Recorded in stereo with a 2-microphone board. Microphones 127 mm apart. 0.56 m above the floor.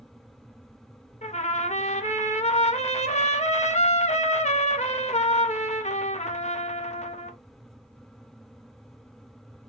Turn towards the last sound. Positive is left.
turn(degrees=65)  # may be behind; listen again after turning